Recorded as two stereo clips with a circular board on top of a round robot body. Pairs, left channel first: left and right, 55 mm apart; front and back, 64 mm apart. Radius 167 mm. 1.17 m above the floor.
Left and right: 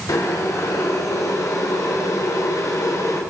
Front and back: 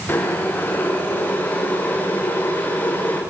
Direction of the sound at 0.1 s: 65° left.